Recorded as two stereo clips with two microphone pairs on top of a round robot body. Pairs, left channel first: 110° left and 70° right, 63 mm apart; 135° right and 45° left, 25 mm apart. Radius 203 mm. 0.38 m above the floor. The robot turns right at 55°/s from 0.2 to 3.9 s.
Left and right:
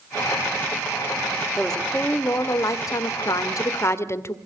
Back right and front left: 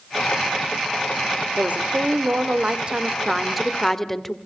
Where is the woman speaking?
20° left, 2 m; by 4.4 s 150° left, 2 m.